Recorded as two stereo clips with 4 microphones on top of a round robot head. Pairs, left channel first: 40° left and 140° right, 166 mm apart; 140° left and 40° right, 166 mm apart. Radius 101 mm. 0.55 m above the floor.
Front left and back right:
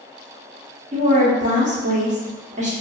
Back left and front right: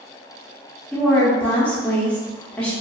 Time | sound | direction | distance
0.9 | a woman speaking | 140° right | 1.1 m